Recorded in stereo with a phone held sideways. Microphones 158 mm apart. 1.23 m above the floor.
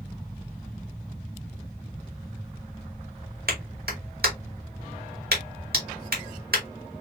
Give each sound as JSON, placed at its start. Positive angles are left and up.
{"t": 3.5, "sound": "a clap", "side_deg": -85, "distance_m": 1.9}